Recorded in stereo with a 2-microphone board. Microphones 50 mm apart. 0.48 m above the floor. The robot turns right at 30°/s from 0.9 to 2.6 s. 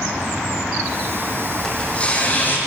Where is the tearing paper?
15° left (ahead or behind), 5 m; by 2.6 s 45° left (ahead or behind), 5 m.